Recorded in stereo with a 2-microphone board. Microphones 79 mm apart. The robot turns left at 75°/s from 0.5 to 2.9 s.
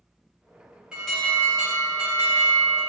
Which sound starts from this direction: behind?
An alarm, at 0.9 s.